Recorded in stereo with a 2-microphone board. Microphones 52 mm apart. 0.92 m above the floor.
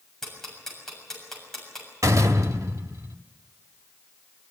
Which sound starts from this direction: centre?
Ticking, at 0.2 s.